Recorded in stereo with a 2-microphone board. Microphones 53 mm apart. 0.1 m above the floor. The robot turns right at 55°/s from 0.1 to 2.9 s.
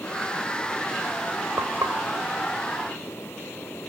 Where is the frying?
75° right (ahead or behind), 3 m; by 2.0 s 55° right (ahead or behind), 3 m.